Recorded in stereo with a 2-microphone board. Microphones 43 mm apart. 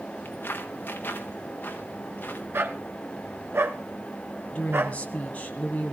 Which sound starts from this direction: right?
A dog barking, at 2.5 s.